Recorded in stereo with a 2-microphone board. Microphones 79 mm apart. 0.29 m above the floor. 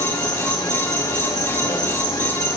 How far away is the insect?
About 8 m.